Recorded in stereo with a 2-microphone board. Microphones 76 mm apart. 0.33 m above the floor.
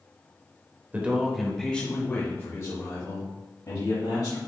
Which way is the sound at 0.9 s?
20° right (ahead or behind).